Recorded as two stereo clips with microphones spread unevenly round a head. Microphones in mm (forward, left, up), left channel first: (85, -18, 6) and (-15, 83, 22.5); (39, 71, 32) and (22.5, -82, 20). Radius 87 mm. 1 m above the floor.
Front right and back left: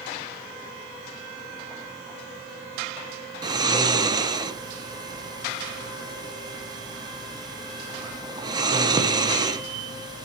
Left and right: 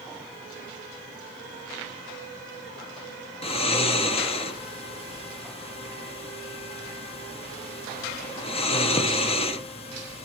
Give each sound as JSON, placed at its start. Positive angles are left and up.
{"t": 3.4, "sound": "snoring", "azimuth_deg": 90, "distance_m": 0.8}